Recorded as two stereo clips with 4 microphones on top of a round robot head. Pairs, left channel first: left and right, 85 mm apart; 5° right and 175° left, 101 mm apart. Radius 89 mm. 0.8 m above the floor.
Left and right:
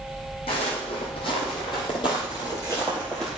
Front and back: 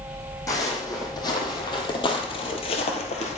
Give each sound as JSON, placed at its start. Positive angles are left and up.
{"t": 0.5, "sound": "footsteps", "azimuth_deg": 50, "distance_m": 2.5}